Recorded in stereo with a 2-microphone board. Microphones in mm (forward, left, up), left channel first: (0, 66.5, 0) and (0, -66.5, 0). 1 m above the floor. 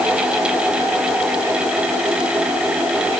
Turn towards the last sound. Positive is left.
No sound to turn to.